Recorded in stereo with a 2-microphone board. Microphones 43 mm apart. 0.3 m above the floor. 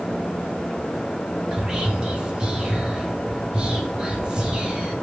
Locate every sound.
1.5 s whispering: 20° right (ahead or behind), 0.9 m